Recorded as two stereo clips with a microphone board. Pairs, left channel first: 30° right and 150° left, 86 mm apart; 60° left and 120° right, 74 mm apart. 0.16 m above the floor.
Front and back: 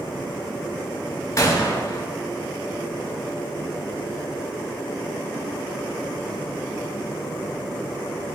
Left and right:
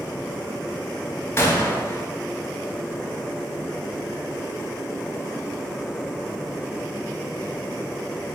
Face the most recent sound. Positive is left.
turn(degrees=15)